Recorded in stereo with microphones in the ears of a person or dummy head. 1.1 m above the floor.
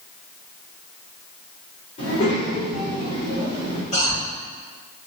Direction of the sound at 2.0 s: 50° left (ahead or behind).